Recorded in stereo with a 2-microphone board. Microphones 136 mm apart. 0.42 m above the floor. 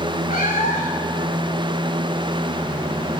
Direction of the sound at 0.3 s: 75° left (ahead or behind).